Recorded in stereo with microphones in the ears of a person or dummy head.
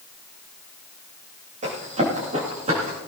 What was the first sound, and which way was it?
Running footsteps, 35° right (ahead or behind).